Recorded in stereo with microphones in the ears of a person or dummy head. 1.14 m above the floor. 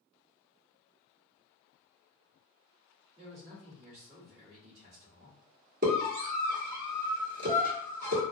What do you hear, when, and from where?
3.2 s a man speaking: 40° right (ahead or behind), 1.5 m
5.8 s a scream: 50° right (ahead or behind), 1.4 m